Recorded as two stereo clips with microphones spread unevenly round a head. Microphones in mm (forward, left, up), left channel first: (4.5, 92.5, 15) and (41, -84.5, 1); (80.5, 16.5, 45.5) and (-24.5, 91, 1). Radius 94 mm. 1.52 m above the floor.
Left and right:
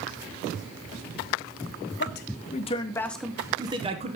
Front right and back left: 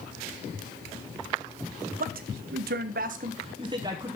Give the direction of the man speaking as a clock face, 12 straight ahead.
7 o'clock.